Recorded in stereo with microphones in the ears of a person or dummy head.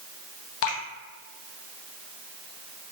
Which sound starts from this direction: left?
Dripping, at 0.6 s.